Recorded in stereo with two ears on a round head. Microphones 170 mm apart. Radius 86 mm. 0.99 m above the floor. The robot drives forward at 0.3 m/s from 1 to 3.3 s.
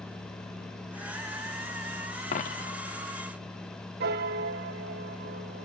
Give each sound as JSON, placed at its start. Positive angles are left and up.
{"t": 2.3, "sound": "a dropped coin", "side_deg": 40, "distance_m": 0.6}
{"t": 4.0, "sound": "a piano", "side_deg": -50, "distance_m": 0.7}